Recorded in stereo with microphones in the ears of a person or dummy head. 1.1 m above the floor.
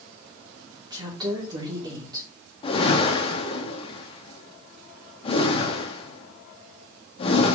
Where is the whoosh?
30° left (ahead or behind), 1.2 m.